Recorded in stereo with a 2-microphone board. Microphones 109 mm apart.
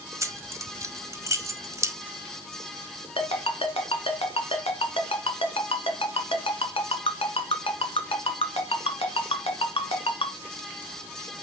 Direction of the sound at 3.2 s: 60° left (ahead or behind).